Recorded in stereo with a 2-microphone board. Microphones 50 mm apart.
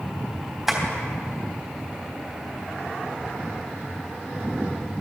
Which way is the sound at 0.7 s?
5° right (ahead or behind).